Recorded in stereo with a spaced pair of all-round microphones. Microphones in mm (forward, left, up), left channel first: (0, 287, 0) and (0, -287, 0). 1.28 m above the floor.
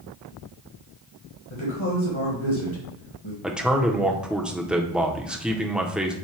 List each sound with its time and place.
1.5 s a woman speaking: 55° left (ahead or behind), 1.4 m
3.4 s a man speaking: centre (ahead or behind), 0.6 m